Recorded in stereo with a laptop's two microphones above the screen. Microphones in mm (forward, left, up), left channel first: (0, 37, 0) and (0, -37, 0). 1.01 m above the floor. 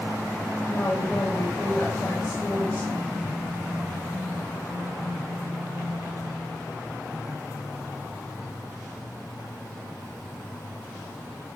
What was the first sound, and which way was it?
A woman speaking, 25° left (ahead or behind).